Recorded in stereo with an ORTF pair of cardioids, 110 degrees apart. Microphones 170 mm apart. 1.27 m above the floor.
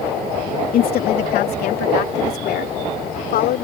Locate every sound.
0.7 s a woman speaking: 65° left; by 3.6 s 70° left